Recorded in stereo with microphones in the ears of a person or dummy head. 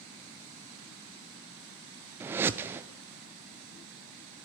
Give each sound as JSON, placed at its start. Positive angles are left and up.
{"t": 2.2, "sound": "a whoosh", "side_deg": -10, "distance_m": 0.6}